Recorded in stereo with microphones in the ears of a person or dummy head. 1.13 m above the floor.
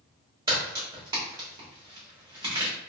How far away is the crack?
About 1.3 m.